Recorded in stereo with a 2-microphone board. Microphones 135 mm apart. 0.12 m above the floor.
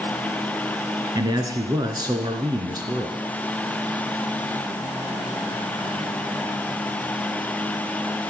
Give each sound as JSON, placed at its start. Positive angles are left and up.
{"t": 1.1, "sound": "a man speaking", "side_deg": -30, "distance_m": 1.3}